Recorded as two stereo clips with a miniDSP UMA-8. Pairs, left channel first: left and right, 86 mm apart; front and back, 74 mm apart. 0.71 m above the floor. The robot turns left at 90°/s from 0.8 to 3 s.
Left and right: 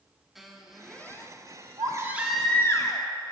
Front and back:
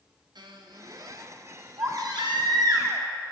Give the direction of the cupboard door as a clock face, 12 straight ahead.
No cupboard door in this recording.